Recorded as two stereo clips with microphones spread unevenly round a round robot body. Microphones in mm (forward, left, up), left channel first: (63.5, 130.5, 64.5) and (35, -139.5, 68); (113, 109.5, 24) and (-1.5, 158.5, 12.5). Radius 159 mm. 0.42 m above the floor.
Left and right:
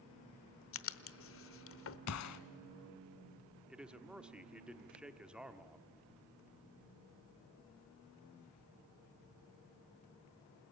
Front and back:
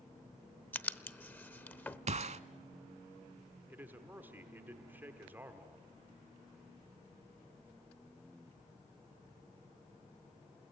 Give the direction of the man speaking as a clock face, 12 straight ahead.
6 o'clock.